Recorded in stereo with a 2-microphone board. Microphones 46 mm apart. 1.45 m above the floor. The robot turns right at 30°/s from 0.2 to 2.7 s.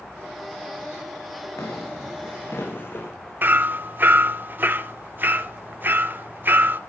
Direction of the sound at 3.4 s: 40° right (ahead or behind).